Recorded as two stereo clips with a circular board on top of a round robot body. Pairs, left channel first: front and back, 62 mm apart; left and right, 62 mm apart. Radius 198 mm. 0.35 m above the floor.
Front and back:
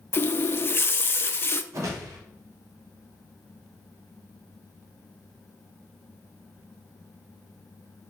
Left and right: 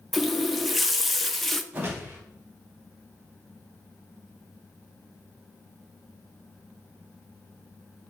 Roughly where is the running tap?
Ahead.